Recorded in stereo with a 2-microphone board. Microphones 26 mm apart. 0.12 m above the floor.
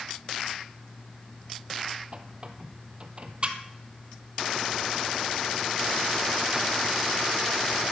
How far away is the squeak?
About 1.3 m.